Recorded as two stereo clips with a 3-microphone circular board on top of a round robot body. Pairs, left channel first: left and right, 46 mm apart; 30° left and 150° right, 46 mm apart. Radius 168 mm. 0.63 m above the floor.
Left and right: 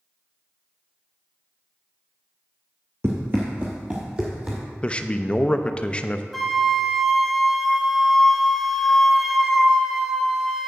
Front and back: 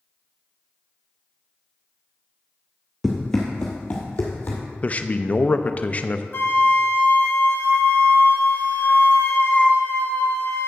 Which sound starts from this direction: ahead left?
A man speaking, at 4.8 s.